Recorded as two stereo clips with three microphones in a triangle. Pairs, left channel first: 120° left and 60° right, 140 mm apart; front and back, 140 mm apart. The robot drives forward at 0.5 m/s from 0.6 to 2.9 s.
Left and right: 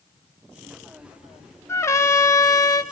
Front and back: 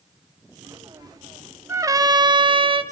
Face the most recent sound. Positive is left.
turn(degrees=170)